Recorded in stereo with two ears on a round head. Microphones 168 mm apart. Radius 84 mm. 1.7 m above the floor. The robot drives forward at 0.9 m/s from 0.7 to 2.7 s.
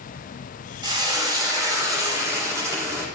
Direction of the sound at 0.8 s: 25° right (ahead or behind).